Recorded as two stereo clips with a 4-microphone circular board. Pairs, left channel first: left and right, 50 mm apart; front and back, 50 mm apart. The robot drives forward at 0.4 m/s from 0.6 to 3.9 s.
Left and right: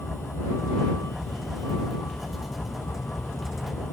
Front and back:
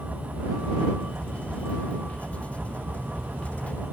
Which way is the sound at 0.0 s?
115° left.